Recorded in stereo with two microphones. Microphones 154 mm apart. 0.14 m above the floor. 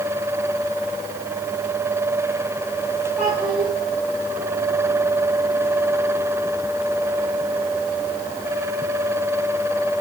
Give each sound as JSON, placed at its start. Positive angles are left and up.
{"t": 3.2, "sound": "a child speaking", "side_deg": -10, "distance_m": 8.0}